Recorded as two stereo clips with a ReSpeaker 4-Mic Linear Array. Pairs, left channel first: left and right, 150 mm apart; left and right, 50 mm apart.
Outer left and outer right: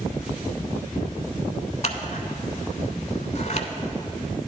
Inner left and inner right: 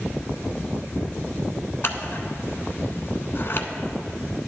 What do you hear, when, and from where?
1.8 s scissors: 50° left (ahead or behind), 0.7 m